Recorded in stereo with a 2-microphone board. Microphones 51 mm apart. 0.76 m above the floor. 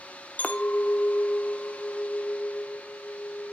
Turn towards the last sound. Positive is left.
turn(degrees=30)  # may be behind; listen again after turning